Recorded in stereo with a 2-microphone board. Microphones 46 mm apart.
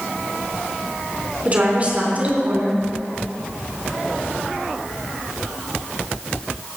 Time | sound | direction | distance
1.4 | a woman speaking | 35° right (ahead or behind) | 3.5 m